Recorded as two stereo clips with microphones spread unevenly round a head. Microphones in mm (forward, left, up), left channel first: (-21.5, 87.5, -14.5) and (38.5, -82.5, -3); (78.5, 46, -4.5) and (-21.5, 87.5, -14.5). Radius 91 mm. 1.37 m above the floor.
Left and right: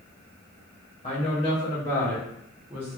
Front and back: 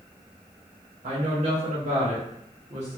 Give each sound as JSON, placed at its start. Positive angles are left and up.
{"t": 1.0, "sound": "a woman speaking", "azimuth_deg": 165, "distance_m": 1.4}